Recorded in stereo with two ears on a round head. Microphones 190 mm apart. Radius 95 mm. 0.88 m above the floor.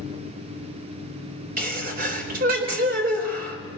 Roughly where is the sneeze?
Right.